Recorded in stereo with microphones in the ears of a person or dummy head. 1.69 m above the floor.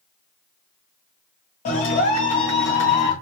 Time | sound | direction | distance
1.6 | a clap | 40° left (ahead or behind) | 1.7 m